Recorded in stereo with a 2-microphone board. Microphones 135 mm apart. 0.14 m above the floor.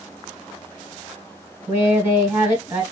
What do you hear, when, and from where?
1.7 s a woman speaking: 10° right (ahead or behind), 1.2 m